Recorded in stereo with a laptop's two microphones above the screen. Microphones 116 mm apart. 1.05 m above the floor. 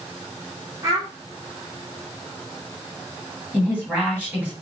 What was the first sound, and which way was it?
A child speaking, 30° right (ahead or behind).